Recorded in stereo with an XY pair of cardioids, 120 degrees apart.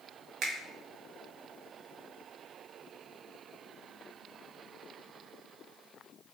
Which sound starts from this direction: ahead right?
A finger snap, at 0.4 s.